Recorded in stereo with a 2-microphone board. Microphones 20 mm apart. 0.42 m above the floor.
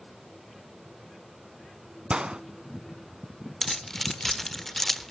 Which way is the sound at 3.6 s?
10° left (ahead or behind).